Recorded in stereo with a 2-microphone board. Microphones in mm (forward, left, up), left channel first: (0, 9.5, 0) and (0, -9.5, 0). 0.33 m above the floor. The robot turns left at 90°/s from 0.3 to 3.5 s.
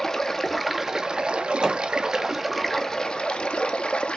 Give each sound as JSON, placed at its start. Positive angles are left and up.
{"t": 0.0, "sound": "running water", "azimuth_deg": 25, "distance_m": 0.7}
{"t": 1.6, "sound": "hammering", "side_deg": -35, "distance_m": 1.6}